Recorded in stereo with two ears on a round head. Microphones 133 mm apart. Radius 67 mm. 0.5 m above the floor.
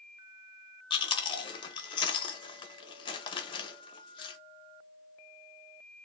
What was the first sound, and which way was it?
Chewing, 35° left (ahead or behind).